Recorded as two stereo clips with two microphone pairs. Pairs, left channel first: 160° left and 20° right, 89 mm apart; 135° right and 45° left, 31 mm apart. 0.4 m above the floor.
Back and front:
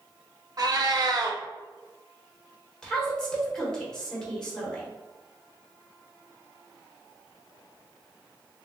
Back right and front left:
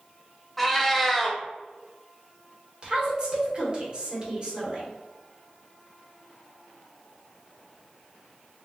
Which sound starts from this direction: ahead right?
A cat meowing, at 0.6 s.